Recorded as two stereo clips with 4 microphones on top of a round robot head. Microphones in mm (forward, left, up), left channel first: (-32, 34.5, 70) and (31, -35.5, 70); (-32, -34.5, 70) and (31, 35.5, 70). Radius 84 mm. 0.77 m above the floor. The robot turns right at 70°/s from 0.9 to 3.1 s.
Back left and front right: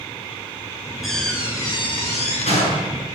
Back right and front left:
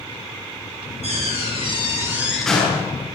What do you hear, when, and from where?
1.0 s a door slam: 40° left, 8 m; by 3.0 s 175° left, 8 m